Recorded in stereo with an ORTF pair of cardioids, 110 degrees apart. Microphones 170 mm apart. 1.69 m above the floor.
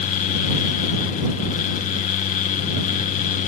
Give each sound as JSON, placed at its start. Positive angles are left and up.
{"t": 0.0, "sound": "a fan", "azimuth_deg": 50}